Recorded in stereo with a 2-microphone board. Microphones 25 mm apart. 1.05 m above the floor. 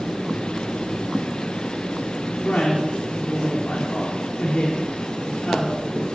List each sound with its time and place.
2.4 s a woman speaking: 55° left (ahead or behind), 3 m